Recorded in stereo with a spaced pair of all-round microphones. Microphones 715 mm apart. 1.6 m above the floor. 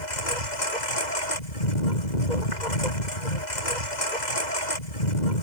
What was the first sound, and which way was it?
A lawn mower, 80° left.